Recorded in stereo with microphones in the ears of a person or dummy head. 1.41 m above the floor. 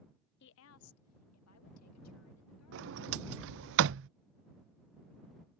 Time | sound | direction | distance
0.4 | a woman speaking | 55° left (ahead or behind) | ?
2.7 | a sliding door | 65° right (ahead or behind) | ?